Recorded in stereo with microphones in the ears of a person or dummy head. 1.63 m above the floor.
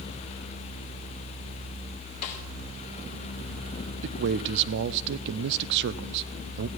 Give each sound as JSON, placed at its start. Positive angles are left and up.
{"t": 2.2, "sound": "a snare drum", "side_deg": 40, "distance_m": 2.0}
{"t": 4.0, "sound": "a man speaking", "side_deg": -60, "distance_m": 0.6}